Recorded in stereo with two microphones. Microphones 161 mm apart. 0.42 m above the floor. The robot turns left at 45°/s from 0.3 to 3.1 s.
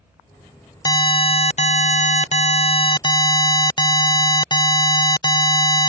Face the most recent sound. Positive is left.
turn(degrees=40)